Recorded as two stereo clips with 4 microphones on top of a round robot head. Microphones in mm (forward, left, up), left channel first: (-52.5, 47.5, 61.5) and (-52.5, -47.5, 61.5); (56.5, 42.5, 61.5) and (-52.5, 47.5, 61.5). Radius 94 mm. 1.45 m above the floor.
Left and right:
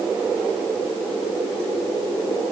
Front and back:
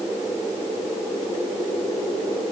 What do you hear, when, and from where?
Only background noise.